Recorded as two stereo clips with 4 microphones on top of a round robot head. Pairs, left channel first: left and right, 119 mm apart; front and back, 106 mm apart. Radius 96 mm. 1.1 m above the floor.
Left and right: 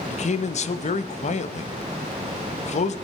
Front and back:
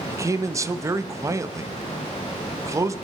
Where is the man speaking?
115° left, 1.0 m.